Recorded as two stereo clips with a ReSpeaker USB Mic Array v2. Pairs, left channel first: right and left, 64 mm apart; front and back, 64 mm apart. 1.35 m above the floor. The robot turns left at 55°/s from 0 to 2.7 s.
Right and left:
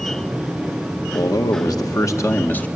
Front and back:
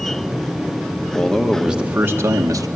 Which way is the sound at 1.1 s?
75° right.